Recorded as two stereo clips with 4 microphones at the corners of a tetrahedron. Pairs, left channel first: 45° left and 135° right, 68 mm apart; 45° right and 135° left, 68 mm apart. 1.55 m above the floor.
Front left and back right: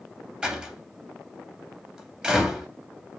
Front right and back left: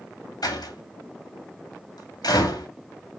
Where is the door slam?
60° right, 2.5 m.